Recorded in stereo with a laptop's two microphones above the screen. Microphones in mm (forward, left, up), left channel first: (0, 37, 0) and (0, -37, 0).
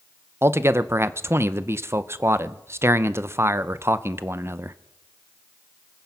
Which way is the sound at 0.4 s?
35° right (ahead or behind).